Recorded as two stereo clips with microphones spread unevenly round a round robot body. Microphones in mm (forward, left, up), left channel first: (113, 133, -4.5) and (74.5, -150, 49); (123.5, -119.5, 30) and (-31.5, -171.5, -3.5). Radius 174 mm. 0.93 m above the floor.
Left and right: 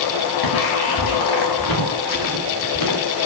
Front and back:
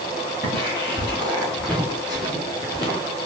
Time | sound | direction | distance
0.4 | footsteps | 115° left | 5.5 m